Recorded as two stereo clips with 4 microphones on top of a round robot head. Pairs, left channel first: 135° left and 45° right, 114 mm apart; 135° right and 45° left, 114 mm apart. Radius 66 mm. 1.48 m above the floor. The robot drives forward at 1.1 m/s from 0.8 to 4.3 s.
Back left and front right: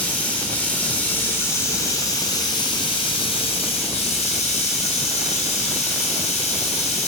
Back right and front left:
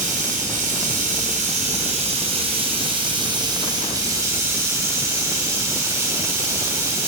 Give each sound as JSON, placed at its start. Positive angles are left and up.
{"t": 0.0, "sound": "running water", "azimuth_deg": 60, "distance_m": 5.0}